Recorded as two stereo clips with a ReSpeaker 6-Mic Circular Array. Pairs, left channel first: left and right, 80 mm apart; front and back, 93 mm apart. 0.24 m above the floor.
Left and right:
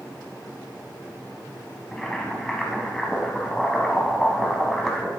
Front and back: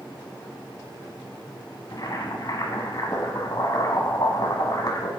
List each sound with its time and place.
1.9 s boiling: 10° left, 1.4 m